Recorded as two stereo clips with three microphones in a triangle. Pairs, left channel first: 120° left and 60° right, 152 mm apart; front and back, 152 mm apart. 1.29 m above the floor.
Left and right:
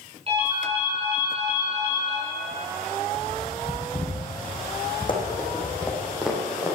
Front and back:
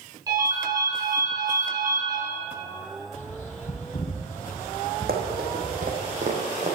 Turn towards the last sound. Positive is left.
turn(degrees=-130)